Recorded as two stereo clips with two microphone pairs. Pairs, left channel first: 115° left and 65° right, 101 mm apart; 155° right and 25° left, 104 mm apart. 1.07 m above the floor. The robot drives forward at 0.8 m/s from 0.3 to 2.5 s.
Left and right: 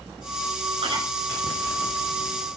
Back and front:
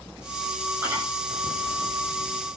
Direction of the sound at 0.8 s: 40° right.